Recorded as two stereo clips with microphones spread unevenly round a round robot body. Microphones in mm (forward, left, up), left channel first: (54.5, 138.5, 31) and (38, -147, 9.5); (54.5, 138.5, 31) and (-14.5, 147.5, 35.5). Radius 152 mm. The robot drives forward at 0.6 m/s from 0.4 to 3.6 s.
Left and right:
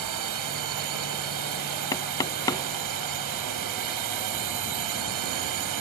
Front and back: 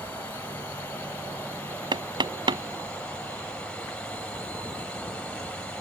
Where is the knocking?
165° left.